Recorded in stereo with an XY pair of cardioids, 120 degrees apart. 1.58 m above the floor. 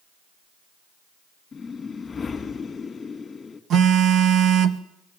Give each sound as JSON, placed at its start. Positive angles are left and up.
{"t": 1.5, "sound": "a whoosh", "azimuth_deg": 25, "distance_m": 2.5}
{"t": 3.7, "sound": "a phone buzzing", "azimuth_deg": -60, "distance_m": 1.4}